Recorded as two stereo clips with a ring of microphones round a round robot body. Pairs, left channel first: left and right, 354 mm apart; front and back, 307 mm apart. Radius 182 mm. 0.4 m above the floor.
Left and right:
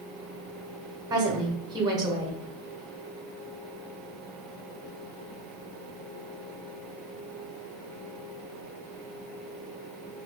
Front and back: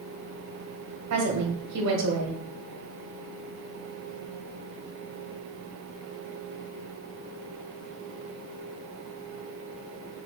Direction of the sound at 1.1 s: 165° right.